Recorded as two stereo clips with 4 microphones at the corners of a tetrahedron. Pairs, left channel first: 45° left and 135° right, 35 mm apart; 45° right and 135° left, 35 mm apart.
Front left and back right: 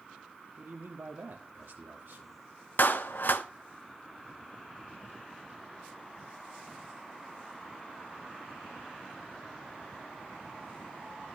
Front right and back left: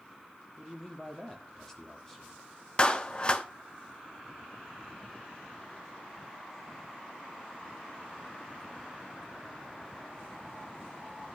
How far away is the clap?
About 0.8 m.